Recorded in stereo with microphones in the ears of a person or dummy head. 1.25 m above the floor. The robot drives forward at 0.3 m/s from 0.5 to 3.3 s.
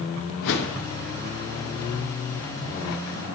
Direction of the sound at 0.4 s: 60° left (ahead or behind).